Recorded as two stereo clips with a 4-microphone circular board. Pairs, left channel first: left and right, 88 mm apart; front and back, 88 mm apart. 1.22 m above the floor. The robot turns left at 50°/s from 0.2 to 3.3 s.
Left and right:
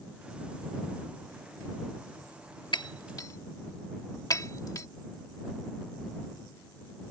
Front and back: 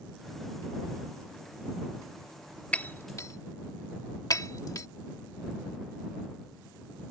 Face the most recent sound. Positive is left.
turn(degrees=45)